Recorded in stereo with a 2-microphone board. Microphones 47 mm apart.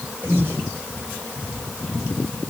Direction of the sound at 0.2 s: 45° right (ahead or behind).